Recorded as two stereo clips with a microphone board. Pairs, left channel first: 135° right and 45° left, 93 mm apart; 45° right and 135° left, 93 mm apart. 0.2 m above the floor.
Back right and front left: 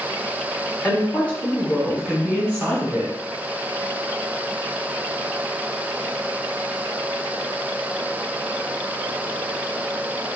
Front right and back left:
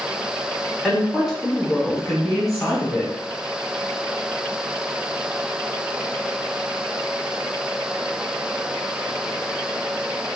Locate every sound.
0.8 s a woman speaking: 140° right, 1.7 m; by 3.1 s 35° left, 1.7 m